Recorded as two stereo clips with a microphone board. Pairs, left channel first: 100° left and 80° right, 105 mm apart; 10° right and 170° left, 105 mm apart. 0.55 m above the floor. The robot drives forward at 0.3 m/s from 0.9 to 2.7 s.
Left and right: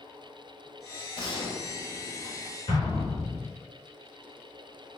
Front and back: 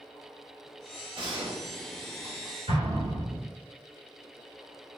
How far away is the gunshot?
About 1.1 m.